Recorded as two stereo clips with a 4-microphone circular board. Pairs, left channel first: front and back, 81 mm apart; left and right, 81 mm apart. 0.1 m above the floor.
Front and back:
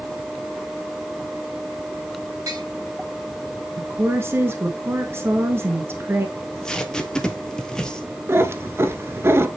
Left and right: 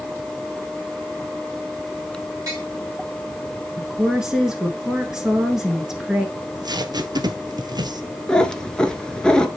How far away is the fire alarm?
I don't hear a fire alarm.